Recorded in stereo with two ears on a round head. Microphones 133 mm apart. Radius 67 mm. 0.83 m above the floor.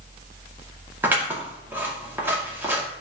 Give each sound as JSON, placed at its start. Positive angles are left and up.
{"t": 1.0, "sound": "scissors", "side_deg": -15, "distance_m": 2.0}